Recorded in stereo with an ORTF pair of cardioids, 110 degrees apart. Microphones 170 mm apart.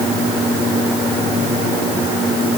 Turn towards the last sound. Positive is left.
No sound to turn to.